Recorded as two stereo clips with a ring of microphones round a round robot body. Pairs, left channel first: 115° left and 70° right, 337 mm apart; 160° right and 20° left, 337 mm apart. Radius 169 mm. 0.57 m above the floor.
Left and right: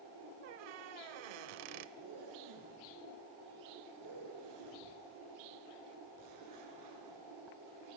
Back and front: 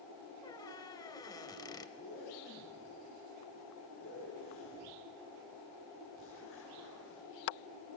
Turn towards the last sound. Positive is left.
turn(degrees=-105)